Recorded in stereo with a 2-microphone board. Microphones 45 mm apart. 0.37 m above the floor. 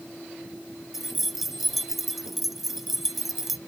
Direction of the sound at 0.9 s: 5° right (ahead or behind).